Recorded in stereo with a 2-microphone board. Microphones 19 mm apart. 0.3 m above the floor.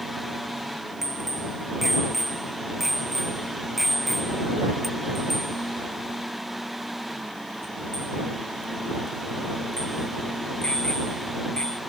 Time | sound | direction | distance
1.0 | a bicycle bell | 15° right (ahead or behind) | ?